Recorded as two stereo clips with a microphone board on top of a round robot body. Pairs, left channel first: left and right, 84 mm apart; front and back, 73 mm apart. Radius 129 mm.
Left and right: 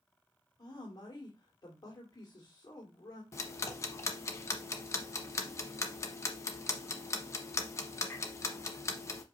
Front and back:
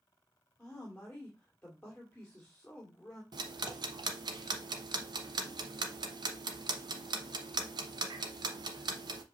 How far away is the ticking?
About 0.9 m.